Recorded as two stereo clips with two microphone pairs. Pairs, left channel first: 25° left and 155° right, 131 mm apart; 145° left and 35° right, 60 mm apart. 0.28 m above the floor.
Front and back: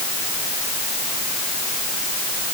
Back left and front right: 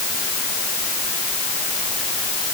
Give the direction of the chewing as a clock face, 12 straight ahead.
No chewing in this recording.